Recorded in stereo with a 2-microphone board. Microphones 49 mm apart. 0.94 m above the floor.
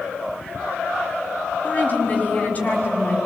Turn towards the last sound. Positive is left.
turn(degrees=35)  # may be behind; listen again after turning